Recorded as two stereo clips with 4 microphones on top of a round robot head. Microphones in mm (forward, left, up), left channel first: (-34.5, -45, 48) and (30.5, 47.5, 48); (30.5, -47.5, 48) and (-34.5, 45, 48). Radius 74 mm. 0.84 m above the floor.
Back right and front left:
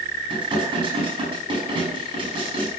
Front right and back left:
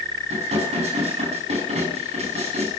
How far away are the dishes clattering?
About 4.5 m.